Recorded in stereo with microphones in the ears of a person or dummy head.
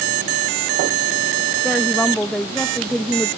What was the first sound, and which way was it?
A woman speaking, 5° left (ahead or behind).